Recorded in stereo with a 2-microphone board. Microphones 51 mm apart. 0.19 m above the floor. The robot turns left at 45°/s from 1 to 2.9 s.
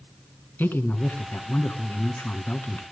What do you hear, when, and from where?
0.6 s a man speaking: 125° left, 1.8 m; by 2.8 s 40° left, 1.8 m